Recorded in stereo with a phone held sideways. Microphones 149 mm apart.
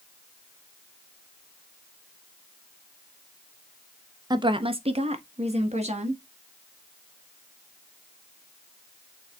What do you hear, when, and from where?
4.3 s a woman speaking: 30° right (ahead or behind), 0.5 m; by 6.2 s 45° right (ahead or behind), 1.4 m